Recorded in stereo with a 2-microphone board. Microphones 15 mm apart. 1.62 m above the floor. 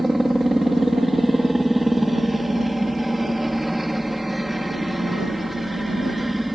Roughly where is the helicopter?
Centre.